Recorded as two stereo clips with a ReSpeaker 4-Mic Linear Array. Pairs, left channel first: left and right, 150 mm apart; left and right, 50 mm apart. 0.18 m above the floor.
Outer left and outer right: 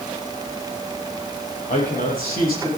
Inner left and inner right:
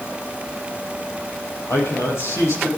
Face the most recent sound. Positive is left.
turn(degrees=70)  # may be behind; listen again after turning